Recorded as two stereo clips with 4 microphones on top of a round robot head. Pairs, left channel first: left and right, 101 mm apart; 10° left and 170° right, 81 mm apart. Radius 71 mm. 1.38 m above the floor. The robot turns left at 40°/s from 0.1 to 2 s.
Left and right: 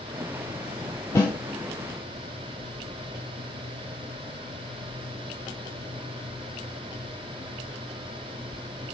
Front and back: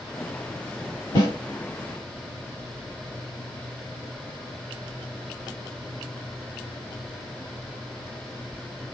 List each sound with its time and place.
1.1 s a snare drum: 40° left, 1.7 m; by 1.3 s 35° left, 1.7 m